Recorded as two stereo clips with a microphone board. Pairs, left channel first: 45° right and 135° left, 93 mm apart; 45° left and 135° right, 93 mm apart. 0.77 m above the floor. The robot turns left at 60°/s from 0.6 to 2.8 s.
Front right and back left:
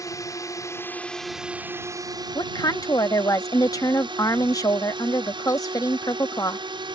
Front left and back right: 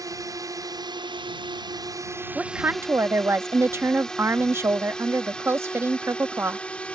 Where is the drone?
90° right; by 7.0 s 120° left.